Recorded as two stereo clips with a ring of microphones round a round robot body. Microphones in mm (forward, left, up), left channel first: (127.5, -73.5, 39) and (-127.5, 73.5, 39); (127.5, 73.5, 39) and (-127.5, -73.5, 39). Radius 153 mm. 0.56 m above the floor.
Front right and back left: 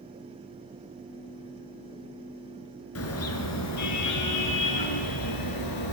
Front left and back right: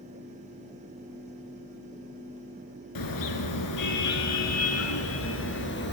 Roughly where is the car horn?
Ahead.